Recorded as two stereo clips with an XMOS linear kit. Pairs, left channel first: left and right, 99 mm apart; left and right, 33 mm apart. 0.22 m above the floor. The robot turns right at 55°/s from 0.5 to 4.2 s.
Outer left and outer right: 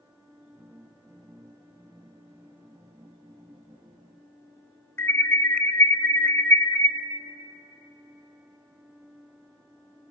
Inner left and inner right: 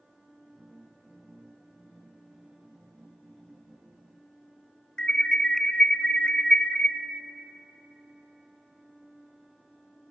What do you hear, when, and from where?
5.0 s an alarm: 25° left (ahead or behind), 1.1 m